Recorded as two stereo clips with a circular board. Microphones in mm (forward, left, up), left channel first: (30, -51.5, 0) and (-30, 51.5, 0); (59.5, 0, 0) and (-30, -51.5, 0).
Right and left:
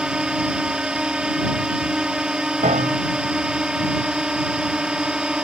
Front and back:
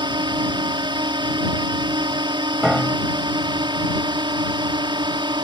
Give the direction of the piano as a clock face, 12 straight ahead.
8 o'clock.